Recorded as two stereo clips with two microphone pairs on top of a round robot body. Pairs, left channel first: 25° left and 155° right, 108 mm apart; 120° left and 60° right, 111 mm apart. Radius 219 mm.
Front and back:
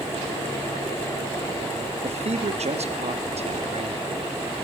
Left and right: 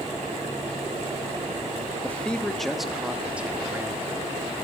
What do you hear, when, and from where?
2.0 s a man speaking: 165° right, 1.5 m; by 4.4 s 125° right, 2 m